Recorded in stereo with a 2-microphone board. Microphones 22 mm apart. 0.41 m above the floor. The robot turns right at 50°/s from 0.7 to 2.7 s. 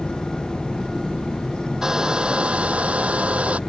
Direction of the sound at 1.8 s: 155° right.